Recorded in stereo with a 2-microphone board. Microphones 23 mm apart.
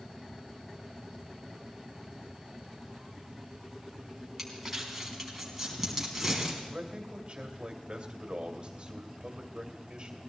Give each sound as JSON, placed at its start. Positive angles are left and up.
{"t": 4.4, "sound": "crumpling", "side_deg": -5, "distance_m": 4.0}
{"t": 6.7, "sound": "a man speaking", "side_deg": -40, "distance_m": 2.5}